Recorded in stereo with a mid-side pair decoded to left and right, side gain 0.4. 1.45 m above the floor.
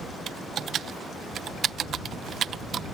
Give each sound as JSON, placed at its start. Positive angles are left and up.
{"t": 0.3, "sound": "typing on a keyboard", "azimuth_deg": -65}